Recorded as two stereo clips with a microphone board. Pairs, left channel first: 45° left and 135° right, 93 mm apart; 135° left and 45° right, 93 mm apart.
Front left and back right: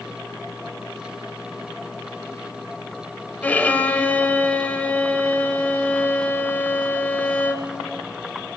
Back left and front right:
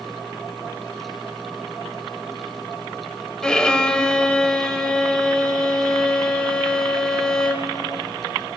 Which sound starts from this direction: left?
A violin, at 3.4 s.